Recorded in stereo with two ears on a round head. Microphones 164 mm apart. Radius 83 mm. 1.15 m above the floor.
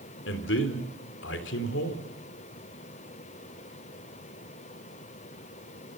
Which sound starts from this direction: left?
A man speaking, at 0.2 s.